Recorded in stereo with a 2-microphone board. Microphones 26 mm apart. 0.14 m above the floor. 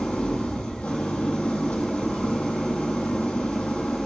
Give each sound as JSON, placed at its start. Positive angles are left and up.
{"t": 0.0, "sound": "an engine running", "side_deg": 55, "distance_m": 1.7}